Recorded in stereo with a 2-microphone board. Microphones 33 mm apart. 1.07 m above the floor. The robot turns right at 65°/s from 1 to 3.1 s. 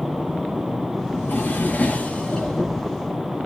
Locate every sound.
1.1 s a drawer: 85° left, 6.5 m; by 2.8 s 165° right, 6.5 m